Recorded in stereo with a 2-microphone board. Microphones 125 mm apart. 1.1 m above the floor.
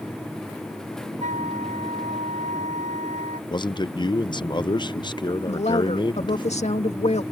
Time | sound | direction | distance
1.2 | a flute | 80° right | ?
3.5 | a man speaking | 40° left (ahead or behind) | ?
5.5 | a woman speaking | 60° left (ahead or behind) | ?